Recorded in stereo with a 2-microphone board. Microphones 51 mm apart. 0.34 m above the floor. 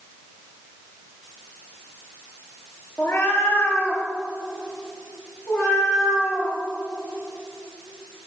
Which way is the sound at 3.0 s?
55° left (ahead or behind).